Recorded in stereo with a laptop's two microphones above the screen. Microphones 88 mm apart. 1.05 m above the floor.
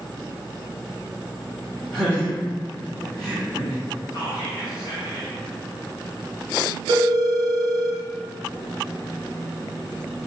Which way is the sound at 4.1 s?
45° left (ahead or behind).